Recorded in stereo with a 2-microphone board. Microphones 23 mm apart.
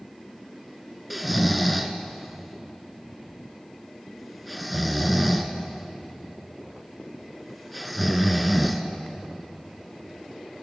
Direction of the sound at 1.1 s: Centre (ahead or behind).